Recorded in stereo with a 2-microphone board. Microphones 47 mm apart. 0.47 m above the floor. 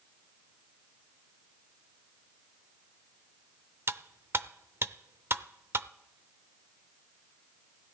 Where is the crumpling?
No crumpling in this recording.